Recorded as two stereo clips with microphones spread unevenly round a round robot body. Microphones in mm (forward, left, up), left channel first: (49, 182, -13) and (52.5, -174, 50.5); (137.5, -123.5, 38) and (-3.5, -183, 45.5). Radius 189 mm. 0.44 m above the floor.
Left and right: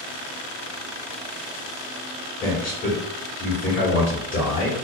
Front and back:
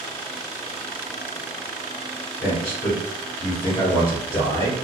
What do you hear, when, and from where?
2.4 s a man speaking: 55° left, 1.3 m